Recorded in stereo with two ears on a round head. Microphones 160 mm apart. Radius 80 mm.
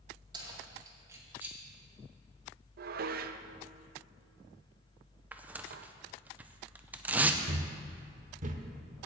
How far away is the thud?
About 1.0 m.